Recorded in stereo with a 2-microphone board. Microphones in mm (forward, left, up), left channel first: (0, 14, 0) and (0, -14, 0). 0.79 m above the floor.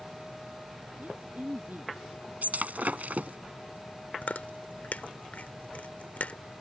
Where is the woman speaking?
80° right.